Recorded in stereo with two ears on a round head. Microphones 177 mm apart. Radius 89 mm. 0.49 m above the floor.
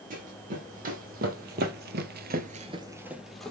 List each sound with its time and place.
0.1 s running footsteps: 40° right (ahead or behind), 1.8 m; by 3.5 s 5° left (ahead or behind), 0.9 m